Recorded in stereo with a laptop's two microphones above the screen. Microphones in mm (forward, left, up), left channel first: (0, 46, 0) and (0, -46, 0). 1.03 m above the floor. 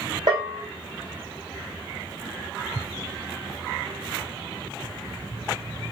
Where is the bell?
50° right (ahead or behind), 1.2 m.